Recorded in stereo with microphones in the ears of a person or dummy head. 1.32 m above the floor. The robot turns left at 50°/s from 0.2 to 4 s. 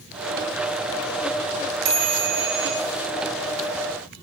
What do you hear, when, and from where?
1.9 s a chime: 55° right, 1.0 m; by 2.7 s 100° right, 1.0 m